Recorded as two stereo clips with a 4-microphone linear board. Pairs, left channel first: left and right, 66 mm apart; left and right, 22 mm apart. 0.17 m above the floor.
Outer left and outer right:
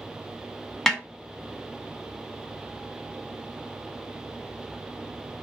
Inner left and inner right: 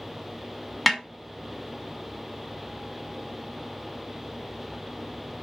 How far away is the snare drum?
About 0.9 m.